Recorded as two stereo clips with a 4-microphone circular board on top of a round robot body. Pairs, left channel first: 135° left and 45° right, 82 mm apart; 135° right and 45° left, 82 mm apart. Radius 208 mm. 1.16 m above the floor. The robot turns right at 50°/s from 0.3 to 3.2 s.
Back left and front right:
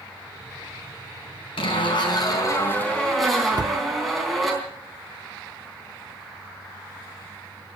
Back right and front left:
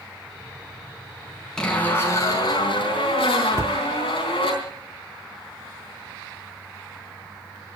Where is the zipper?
145° left, 4 m; by 4.5 s 135° right, 4 m.